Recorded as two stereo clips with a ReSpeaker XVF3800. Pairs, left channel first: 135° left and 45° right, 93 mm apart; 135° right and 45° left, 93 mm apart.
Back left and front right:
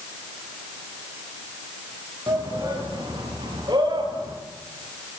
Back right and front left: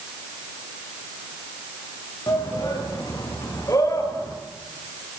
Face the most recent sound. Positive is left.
turn(degrees=-80)